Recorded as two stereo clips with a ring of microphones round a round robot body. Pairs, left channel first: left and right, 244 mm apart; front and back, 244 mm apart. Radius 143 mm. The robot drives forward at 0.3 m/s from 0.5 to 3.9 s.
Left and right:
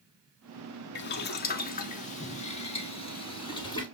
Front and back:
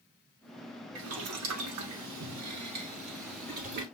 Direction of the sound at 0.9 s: 135° left.